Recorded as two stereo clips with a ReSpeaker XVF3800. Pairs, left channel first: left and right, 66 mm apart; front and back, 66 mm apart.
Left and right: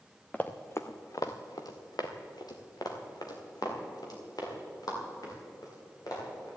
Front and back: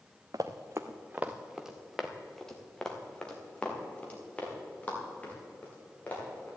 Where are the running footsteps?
160° left, 1.1 m; by 6.5 s 65° left, 6 m.